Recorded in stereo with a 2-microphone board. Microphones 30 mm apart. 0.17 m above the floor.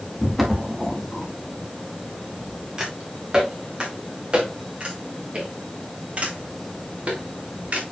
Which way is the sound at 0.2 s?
Centre (ahead or behind).